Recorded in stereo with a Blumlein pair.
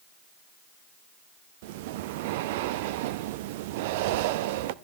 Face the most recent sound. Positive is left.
turn(degrees=-50)